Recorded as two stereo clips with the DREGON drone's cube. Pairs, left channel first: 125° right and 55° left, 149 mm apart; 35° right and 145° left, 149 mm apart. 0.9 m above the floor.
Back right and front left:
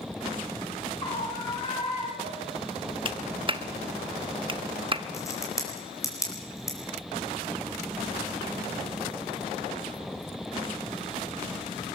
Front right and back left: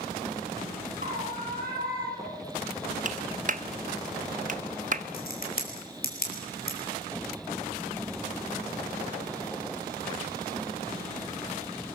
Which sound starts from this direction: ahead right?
A crack, at 5.1 s.